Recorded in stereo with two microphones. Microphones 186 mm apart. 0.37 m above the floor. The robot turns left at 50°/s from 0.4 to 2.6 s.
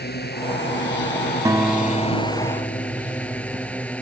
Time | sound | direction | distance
0.0 | a drone | 115° left | ?
1.4 | a guitar | 160° right | ?